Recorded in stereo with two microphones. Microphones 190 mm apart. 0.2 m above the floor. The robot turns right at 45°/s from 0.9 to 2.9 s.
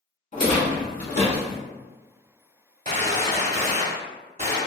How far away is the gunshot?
About 0.7 m.